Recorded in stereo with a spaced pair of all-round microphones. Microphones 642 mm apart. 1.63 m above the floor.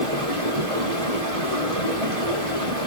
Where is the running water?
75° right (ahead or behind), 5 m.